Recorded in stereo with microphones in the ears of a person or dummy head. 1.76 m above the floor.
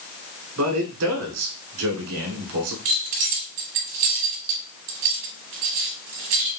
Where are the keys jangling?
40° right (ahead or behind), 0.9 m.